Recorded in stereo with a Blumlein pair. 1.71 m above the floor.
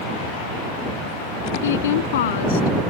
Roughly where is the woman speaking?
Ahead left.